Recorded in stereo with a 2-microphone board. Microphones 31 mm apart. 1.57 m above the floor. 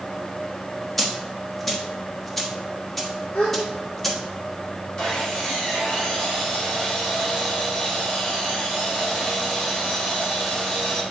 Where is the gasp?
75° left (ahead or behind), 3 m.